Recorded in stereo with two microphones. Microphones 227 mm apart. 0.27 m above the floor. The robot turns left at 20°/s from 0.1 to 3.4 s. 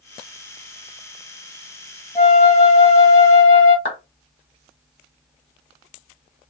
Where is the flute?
20° left (ahead or behind), 1.9 m; by 3.8 s 40° left (ahead or behind), 1.9 m.